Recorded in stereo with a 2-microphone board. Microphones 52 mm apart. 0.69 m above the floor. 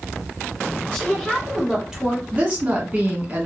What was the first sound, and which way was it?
A woman speaking, 5° left (ahead or behind).